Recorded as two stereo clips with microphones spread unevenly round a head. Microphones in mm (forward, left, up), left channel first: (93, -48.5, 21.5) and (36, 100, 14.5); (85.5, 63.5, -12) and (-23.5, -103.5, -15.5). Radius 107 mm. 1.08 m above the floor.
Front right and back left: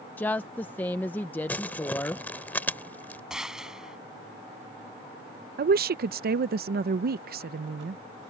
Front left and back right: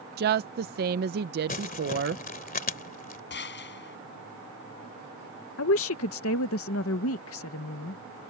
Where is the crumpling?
10° left.